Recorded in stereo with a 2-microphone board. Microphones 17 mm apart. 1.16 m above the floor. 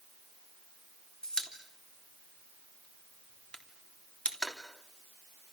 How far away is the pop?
About 3 m.